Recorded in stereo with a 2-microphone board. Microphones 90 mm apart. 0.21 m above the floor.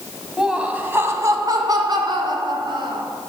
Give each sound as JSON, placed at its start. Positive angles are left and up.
{"t": 0.4, "sound": "laughter", "side_deg": -5, "distance_m": 1.3}